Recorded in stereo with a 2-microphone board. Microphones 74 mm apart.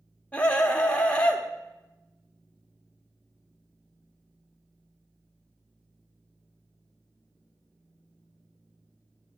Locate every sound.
0.3 s a scream: 15° left (ahead or behind), 1.2 m